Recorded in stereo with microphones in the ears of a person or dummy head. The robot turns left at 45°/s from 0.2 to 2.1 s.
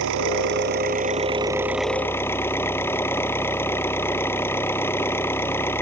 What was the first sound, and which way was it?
An engine running, 105° right.